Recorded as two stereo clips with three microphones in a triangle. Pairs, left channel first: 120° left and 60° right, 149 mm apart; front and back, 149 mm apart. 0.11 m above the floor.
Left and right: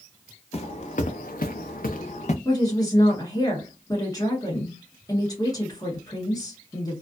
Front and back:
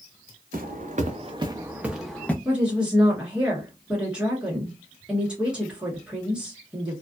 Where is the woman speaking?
105° left, 1.4 m.